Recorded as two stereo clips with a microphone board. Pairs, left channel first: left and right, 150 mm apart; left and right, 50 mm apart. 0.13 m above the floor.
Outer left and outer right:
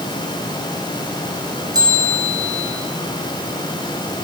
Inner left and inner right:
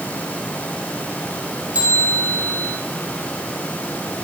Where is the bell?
25° right (ahead or behind), 7 m.